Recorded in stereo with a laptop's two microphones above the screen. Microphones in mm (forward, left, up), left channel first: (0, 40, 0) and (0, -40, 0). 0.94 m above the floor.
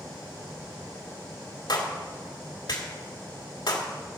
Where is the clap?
65° left (ahead or behind), 2 m.